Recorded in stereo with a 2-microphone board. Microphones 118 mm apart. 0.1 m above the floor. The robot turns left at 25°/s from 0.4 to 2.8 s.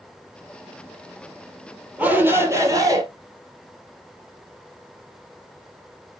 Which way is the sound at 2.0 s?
10° right (ahead or behind).